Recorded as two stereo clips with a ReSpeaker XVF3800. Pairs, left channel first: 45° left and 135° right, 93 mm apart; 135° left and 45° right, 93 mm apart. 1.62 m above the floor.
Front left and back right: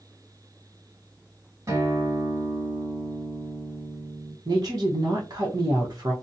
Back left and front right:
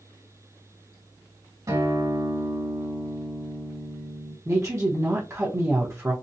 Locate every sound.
1.7 s a guitar: 85° right, 1.9 m
4.5 s a woman speaking: 95° right, 1.0 m